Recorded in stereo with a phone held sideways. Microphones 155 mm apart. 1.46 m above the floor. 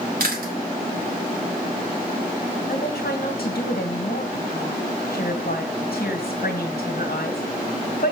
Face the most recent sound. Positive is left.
turn(degrees=80)